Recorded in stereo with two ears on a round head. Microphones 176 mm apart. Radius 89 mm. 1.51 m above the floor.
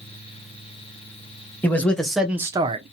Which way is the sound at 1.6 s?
10° left (ahead or behind).